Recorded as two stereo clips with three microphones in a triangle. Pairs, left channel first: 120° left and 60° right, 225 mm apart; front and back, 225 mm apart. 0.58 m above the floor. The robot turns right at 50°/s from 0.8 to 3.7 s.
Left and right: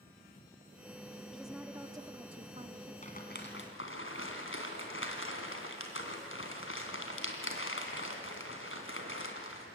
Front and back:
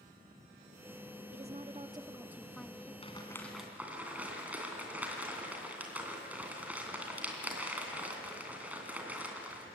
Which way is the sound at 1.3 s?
155° right.